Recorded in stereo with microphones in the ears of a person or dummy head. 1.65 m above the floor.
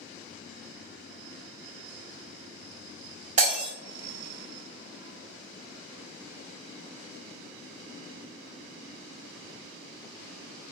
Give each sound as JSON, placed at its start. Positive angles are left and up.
{"t": 3.4, "sound": "breaking glass", "side_deg": -40, "distance_m": 1.9}